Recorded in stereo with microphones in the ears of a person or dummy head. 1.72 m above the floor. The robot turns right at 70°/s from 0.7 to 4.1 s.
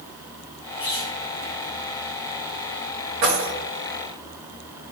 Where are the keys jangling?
50° right (ahead or behind), 1.7 m; by 3.5 s 55° right (ahead or behind), 1.7 m.